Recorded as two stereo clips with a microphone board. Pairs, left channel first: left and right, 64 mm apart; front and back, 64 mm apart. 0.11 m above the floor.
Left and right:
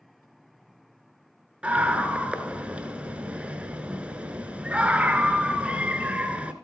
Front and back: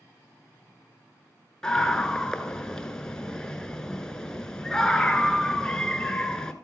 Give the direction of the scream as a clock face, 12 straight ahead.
2 o'clock.